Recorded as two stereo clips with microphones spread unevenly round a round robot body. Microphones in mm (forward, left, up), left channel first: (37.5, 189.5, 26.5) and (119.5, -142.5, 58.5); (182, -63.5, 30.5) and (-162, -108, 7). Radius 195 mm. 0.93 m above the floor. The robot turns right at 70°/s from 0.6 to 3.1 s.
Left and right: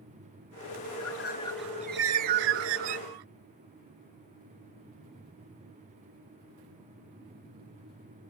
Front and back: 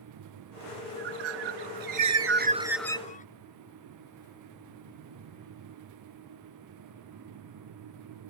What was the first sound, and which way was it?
A bird, 145° left.